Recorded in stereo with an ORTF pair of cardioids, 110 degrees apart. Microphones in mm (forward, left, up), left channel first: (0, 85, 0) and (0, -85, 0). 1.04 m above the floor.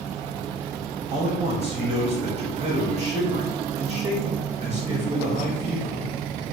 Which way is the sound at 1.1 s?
40° right.